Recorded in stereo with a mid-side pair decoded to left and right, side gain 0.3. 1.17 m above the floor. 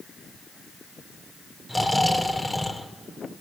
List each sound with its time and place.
1.7 s snoring: 20° left, 2 m